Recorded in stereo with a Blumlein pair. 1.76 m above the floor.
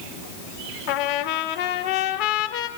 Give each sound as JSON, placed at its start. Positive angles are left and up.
{"t": 0.9, "sound": "a trumpet", "azimuth_deg": 45, "distance_m": 1.8}